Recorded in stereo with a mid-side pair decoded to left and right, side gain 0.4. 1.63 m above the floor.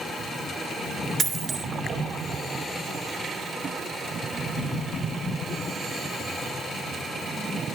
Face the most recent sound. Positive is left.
turn(degrees=-55)